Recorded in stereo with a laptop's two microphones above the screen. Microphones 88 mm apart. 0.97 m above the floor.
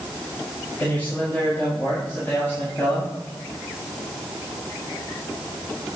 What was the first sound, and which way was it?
A man speaking, 20° left (ahead or behind).